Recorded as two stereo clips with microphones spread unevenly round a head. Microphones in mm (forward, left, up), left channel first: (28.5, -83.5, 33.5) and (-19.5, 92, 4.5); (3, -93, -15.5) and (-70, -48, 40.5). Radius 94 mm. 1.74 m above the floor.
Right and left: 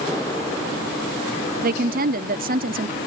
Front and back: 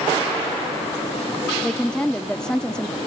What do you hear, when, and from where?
1.6 s a woman speaking: 60° left